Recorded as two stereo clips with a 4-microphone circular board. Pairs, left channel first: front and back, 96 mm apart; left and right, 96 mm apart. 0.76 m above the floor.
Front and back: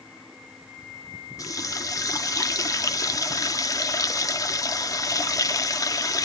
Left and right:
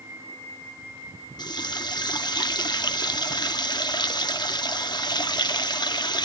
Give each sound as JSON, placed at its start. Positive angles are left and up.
{"t": 1.4, "sound": "a running tap", "azimuth_deg": 50, "distance_m": 0.7}